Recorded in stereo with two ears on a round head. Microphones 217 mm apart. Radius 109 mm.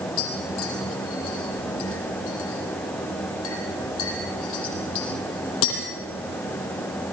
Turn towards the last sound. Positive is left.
turn(degrees=60)  # may be behind; listen again after turning